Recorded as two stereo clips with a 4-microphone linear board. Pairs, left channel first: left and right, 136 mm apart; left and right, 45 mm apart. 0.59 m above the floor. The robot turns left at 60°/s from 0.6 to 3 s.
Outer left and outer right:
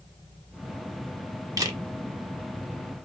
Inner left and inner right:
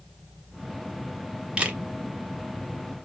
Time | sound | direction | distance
1.6 | a camera shutter | 25° right (ahead or behind) | 0.7 m